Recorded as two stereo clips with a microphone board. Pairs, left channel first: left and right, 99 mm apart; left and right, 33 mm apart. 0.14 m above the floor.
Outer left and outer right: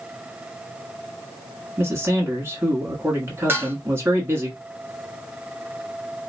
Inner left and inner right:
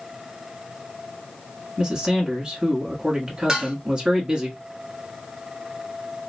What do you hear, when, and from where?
1.8 s a man speaking: 25° right (ahead or behind), 1.4 m
3.5 s dishes clattering: 20° right (ahead or behind), 0.8 m